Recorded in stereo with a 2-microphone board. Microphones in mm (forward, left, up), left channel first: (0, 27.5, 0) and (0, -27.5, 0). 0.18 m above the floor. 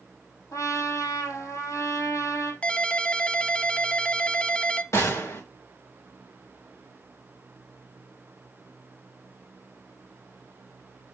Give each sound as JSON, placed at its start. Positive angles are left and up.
{"t": 0.5, "sound": "a trumpet", "side_deg": 75, "distance_m": 3.0}
{"t": 2.6, "sound": "a ringtone", "side_deg": 20, "distance_m": 0.6}
{"t": 4.9, "sound": "a gunshot", "side_deg": 65, "distance_m": 3.0}